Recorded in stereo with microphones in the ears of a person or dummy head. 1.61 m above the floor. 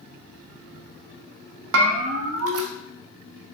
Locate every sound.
1.7 s a bell: 75° right (ahead or behind), 0.6 m